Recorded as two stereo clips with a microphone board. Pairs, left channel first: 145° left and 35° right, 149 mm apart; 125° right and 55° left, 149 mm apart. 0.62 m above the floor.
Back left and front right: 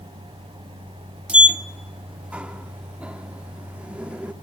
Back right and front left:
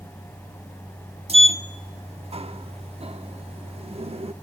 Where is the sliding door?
45° left, 0.8 m.